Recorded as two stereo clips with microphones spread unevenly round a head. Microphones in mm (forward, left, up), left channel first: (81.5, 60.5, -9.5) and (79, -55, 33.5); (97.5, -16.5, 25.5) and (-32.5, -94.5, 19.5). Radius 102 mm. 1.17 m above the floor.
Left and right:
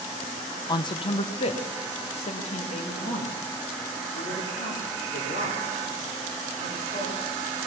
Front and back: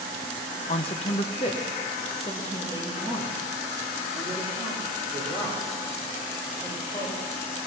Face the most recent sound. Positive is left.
turn(degrees=100)